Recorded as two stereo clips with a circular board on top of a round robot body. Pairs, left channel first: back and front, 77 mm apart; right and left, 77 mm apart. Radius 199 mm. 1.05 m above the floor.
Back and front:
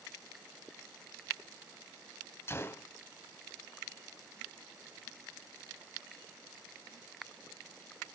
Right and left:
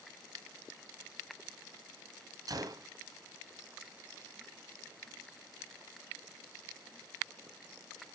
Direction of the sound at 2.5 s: 125° left.